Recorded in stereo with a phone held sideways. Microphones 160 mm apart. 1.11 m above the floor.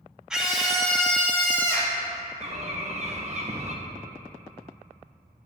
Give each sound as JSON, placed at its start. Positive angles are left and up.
{"t": 0.3, "sound": "a scream", "side_deg": -5, "distance_m": 2.0}
{"t": 2.4, "sound": "a bird", "side_deg": -45, "distance_m": 1.1}